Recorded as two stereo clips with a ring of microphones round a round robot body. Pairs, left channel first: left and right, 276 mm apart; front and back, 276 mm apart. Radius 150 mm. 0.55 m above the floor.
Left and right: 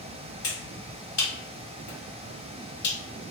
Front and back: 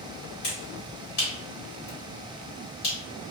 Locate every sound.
0.4 s a finger snap: 45° left, 1.7 m